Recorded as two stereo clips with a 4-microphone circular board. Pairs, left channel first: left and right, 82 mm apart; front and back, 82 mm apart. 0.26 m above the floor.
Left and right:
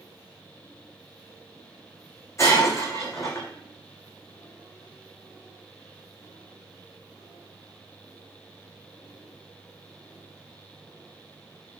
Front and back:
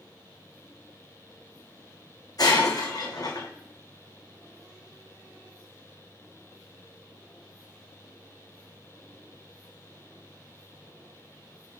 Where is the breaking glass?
40° left, 2 m.